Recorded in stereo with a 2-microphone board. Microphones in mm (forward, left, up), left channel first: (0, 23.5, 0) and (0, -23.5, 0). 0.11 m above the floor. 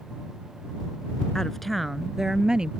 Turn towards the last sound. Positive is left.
turn(degrees=-20)  # may be behind; listen again after turning